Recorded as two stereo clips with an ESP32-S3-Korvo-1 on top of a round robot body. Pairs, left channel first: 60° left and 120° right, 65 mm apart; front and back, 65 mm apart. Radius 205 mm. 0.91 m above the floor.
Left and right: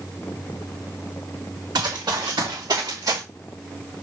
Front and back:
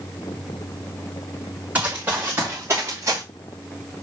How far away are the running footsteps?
About 5 m.